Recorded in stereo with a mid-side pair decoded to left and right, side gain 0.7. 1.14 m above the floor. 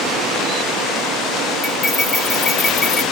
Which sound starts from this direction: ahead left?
Cutlery clinking, at 1.6 s.